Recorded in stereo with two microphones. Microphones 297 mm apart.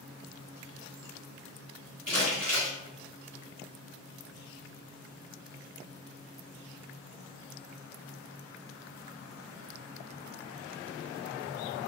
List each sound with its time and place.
2.1 s crumpling: 35° right (ahead or behind), 1.8 m